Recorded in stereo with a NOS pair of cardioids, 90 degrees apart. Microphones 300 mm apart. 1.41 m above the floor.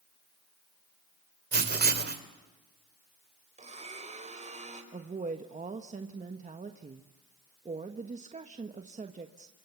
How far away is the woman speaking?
About 1.3 m.